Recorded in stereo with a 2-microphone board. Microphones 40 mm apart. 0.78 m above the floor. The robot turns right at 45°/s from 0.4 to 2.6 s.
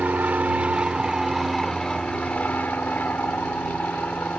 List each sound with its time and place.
0.0 s an aircraft: 50° right; by 4.4 s 50° left